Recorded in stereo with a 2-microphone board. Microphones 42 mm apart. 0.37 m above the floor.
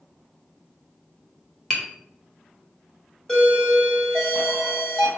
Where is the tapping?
20° left (ahead or behind), 2 m.